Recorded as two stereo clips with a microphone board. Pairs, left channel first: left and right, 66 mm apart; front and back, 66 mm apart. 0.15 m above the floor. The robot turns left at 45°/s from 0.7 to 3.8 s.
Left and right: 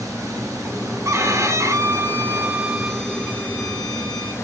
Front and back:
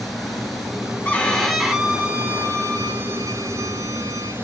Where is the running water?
90° right, 1.5 m; by 4.4 s 130° left, 1.5 m.